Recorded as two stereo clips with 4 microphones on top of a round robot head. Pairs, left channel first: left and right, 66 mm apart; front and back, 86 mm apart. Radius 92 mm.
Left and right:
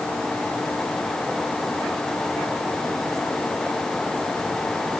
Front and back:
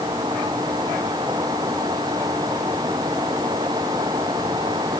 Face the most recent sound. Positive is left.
No sound to turn to.